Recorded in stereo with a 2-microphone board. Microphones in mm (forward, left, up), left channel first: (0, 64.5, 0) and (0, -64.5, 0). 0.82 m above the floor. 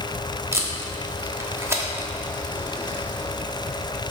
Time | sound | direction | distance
0.5 | tape being pulled | 20° right (ahead or behind) | 1.2 m